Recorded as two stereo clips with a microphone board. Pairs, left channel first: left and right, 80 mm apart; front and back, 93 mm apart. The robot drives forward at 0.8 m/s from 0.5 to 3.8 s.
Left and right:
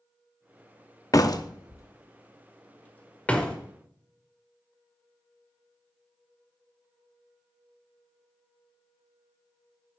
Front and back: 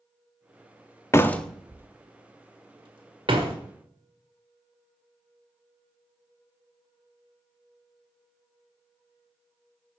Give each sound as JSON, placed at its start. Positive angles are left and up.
{"t": 1.1, "sound": "a door slam", "azimuth_deg": 55, "distance_m": 0.7}